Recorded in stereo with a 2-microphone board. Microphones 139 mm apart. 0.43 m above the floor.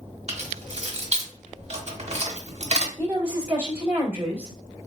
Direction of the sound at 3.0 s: 15° right (ahead or behind).